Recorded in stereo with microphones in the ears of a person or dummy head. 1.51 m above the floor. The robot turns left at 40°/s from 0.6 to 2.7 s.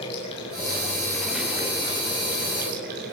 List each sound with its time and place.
0.0 s running water: 30° left, 5 m; by 3.1 s 55° right, 5 m